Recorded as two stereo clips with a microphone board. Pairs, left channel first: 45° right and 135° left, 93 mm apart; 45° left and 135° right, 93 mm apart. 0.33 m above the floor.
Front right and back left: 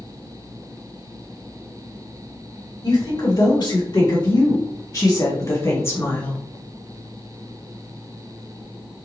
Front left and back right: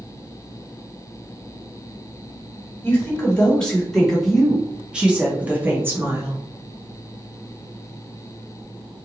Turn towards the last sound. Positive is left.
turn(degrees=-100)